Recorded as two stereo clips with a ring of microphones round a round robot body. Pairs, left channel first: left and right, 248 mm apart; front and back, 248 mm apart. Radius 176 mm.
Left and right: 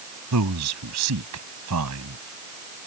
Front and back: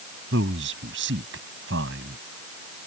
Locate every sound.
0.3 s a man speaking: 125° right